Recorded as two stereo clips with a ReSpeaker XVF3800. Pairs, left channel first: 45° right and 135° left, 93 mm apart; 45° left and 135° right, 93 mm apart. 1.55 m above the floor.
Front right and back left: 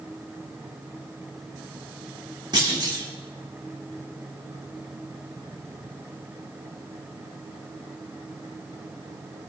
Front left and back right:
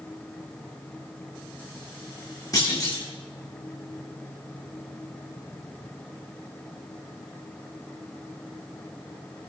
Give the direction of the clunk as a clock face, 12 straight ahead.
9 o'clock.